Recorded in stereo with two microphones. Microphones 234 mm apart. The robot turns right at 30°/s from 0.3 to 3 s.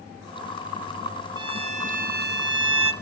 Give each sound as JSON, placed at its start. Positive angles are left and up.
{"t": 1.4, "sound": "a violin", "azimuth_deg": -160, "distance_m": 1.1}